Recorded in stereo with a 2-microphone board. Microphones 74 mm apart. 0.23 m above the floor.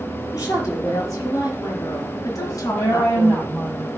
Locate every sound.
0.3 s a woman speaking: 45° left (ahead or behind), 5 m; by 3.4 s 55° left (ahead or behind), 2.5 m
2.4 s a woman speaking: 35° left (ahead or behind), 6.5 m